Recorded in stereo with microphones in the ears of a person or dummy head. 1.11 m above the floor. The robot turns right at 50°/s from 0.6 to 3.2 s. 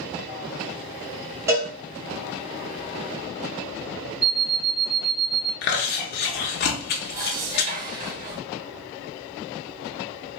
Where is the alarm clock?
25° right (ahead or behind), 1.3 m.